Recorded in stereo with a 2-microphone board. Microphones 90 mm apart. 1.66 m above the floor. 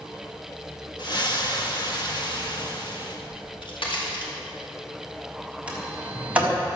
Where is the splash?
55° left (ahead or behind), 1.8 m.